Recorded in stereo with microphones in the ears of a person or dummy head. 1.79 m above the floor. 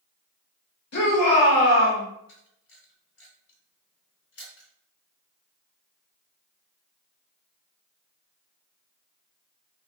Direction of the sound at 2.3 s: 65° left (ahead or behind).